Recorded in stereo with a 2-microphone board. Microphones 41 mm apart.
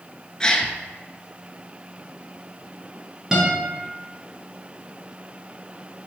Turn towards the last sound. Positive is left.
turn(degrees=-15)  # may be behind; listen again after turning